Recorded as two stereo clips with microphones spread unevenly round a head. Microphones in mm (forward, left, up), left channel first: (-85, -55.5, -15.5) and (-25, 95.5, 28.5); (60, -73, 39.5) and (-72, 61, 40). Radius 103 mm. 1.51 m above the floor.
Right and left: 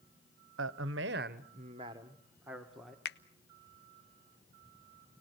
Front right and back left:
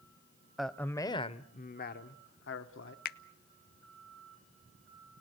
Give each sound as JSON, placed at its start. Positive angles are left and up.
{"t": 0.6, "sound": "a man speaking", "azimuth_deg": 45, "distance_m": 1.0}
{"t": 3.0, "sound": "a finger snap", "azimuth_deg": -75, "distance_m": 0.5}